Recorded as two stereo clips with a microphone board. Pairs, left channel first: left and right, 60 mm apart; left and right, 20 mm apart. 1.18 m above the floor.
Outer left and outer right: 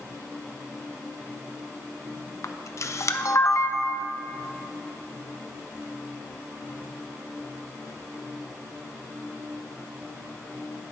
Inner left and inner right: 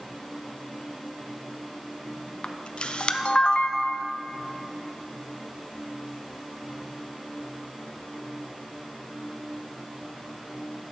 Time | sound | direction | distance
2.4 | a camera shutter | 50° left (ahead or behind) | 0.5 m